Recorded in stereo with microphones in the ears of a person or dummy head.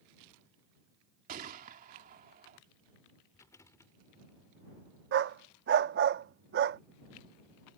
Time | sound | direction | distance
1.3 | a gunshot | 45° right (ahead or behind) | ?
3.3 | a rattle | 15° left (ahead or behind) | ?
5.1 | a dog barking | 45° right (ahead or behind) | ?